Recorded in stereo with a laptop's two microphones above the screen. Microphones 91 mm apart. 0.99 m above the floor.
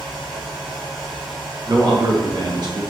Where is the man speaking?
50° right (ahead or behind), 0.6 m.